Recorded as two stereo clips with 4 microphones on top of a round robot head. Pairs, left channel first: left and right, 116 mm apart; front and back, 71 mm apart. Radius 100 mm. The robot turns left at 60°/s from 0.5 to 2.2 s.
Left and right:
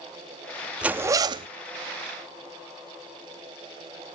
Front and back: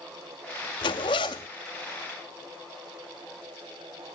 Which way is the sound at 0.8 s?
10° right.